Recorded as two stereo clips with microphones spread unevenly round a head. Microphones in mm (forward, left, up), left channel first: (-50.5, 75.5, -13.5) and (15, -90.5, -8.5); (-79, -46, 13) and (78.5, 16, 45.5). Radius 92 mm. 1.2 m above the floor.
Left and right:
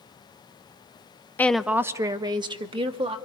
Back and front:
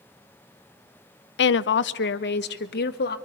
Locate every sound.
1.4 s a woman speaking: 170° right, 0.6 m; by 3.2 s 130° right, 2 m